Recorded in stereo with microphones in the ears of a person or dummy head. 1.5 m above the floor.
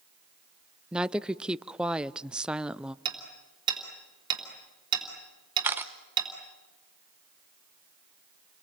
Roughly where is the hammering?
Right.